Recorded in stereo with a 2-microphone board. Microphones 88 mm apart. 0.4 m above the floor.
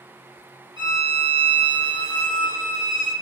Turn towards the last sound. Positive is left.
turn(degrees=-60)  # may be behind; listen again after turning